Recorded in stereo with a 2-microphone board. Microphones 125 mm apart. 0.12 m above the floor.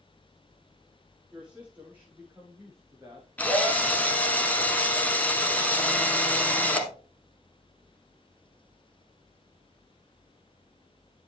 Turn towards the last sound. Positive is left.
turn(degrees=10)  # may be behind; listen again after turning